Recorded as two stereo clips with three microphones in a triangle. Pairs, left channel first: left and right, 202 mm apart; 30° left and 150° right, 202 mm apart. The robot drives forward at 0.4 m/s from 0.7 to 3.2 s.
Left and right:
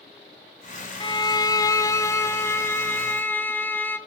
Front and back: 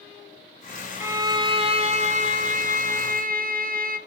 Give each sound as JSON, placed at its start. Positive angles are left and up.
{"t": 1.0, "sound": "a violin", "azimuth_deg": 140, "distance_m": 0.5}